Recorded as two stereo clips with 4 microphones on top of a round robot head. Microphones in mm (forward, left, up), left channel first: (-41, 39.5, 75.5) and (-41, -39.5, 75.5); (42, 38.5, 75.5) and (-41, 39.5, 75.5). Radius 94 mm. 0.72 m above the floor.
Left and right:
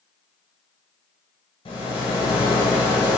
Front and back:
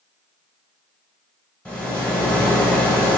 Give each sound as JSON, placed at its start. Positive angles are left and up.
{"t": 1.6, "sound": "a rattle", "azimuth_deg": 75, "distance_m": 1.2}